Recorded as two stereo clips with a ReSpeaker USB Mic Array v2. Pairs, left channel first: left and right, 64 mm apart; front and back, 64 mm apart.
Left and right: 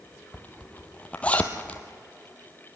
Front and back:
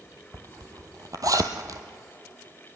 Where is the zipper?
155° left, 1.3 m.